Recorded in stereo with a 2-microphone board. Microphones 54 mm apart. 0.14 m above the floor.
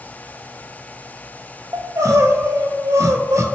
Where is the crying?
70° right (ahead or behind), 0.5 m.